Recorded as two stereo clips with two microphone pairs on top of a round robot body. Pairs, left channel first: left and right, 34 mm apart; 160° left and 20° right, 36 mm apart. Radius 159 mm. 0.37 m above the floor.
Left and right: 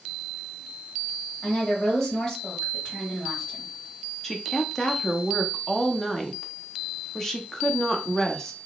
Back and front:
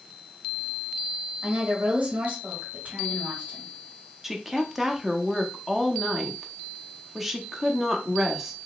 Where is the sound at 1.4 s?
35° left, 2.5 m.